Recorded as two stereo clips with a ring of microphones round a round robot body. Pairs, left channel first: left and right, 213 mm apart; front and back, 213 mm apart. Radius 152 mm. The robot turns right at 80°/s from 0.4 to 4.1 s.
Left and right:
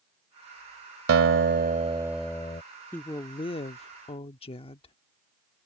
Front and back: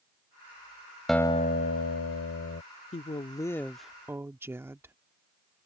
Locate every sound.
1.1 s a guitar: 90° right; by 2.6 s 30° left
2.9 s a woman speaking: 20° left; by 5.0 s 110° left